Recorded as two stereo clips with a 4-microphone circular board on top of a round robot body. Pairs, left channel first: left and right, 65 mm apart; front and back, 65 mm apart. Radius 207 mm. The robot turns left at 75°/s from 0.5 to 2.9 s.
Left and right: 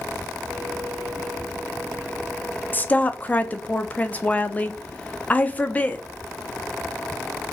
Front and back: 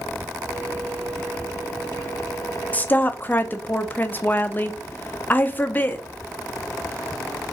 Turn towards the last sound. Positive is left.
turn(degrees=40)